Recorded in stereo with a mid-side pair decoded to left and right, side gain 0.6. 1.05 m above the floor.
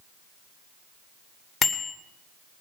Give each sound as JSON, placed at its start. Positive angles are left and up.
{"t": 1.6, "sound": "a bicycle bell", "azimuth_deg": 25, "distance_m": 2.5}